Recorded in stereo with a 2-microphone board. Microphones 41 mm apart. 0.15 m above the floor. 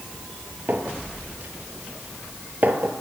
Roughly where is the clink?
Right.